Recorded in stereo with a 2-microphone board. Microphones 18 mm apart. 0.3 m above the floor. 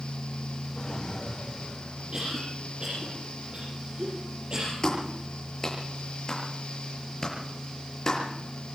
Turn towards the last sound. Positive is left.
turn(degrees=35)  # may be behind; listen again after turning